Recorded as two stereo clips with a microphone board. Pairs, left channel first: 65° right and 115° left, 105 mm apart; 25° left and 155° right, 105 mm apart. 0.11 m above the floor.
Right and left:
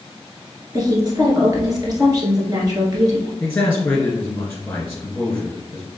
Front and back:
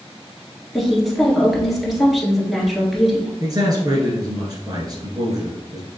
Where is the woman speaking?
115° left, 1.4 m.